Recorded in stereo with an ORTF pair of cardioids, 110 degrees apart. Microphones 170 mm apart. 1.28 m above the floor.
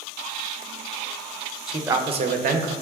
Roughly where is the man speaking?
Ahead.